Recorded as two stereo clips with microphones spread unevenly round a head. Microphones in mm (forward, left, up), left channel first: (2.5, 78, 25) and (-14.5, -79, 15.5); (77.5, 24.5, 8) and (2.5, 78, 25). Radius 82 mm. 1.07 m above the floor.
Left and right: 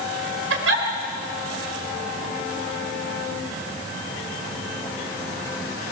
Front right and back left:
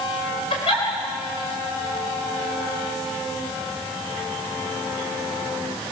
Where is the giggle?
95° right, 3.5 m.